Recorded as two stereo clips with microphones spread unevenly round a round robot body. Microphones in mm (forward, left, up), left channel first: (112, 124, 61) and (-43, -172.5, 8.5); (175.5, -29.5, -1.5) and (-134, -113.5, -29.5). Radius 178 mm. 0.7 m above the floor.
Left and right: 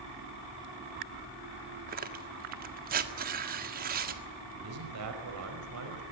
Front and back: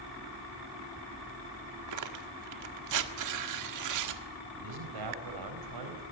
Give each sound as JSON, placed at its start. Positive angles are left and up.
{"t": 1.9, "sound": "tearing paper", "azimuth_deg": -170, "distance_m": 1.7}
{"t": 4.5, "sound": "a man speaking", "azimuth_deg": -160, "distance_m": 4.5}